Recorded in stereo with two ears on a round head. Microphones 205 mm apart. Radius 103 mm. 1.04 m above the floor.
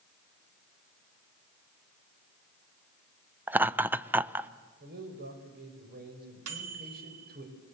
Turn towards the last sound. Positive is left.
turn(degrees=-75)  # may be behind; listen again after turning